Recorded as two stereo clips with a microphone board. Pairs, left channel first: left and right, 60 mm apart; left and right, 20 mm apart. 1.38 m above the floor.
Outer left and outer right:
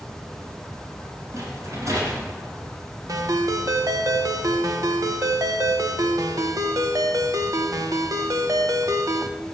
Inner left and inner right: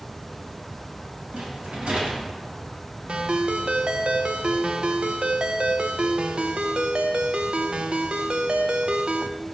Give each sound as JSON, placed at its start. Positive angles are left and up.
{"t": 1.3, "sound": "a rattle", "side_deg": -65, "distance_m": 4.0}
{"t": 3.1, "sound": "a ringtone", "side_deg": -75, "distance_m": 1.0}